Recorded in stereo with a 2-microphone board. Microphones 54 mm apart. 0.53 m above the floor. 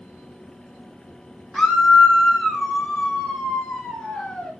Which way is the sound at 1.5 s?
5° left (ahead or behind).